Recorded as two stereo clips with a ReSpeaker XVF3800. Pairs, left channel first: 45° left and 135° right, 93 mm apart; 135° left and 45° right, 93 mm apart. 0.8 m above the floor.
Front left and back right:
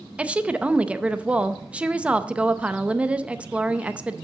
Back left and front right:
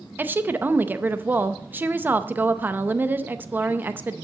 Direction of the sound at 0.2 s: 75° right.